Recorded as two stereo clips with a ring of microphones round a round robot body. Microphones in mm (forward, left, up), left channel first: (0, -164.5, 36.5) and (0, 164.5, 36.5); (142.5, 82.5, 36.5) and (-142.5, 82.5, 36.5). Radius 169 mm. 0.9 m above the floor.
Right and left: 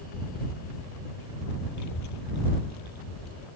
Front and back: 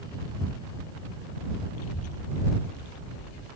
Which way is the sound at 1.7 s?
50° right.